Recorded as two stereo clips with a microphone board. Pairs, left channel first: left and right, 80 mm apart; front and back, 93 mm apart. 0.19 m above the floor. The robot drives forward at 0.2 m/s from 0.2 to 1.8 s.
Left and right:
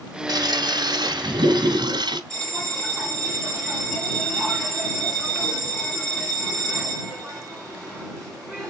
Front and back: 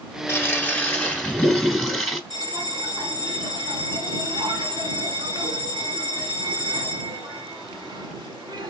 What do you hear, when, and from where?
0.3 s a toilet flushing: 65° right, 0.8 m; by 2.2 s 90° right, 0.7 m
2.3 s a bell: 170° left, 2 m